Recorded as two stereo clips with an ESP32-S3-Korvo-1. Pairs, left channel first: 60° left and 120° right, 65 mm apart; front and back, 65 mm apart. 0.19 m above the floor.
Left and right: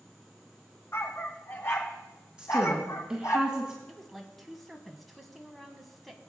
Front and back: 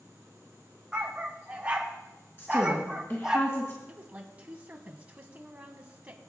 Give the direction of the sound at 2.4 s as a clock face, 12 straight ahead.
2 o'clock.